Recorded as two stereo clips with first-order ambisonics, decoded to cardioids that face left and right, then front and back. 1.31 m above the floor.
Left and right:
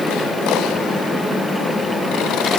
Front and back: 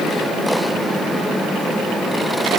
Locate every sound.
Only background noise.